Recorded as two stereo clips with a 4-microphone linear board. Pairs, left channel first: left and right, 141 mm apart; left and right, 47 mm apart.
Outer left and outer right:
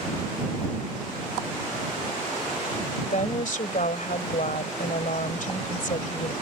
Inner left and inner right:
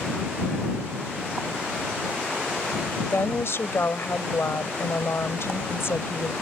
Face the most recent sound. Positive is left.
turn(degrees=65)  # may be behind; listen again after turning